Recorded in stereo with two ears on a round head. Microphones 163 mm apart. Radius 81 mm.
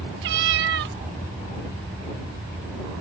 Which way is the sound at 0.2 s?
65° right (ahead or behind).